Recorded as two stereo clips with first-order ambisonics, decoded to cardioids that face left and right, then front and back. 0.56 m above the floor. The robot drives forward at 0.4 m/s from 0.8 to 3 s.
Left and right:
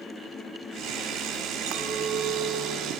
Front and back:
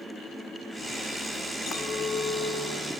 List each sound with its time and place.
1.7 s a clink: 65° right, 2 m; by 3.0 s 80° right, 2.0 m